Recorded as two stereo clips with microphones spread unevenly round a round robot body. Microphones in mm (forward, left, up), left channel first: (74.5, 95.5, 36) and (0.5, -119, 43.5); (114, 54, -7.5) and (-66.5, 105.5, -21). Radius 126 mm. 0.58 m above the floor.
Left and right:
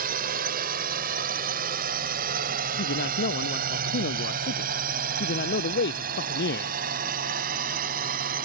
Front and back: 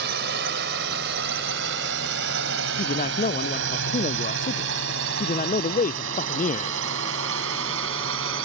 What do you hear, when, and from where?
0.0 s a drone: 160° right; by 8.5 s 165° right
2.8 s a man speaking: 30° left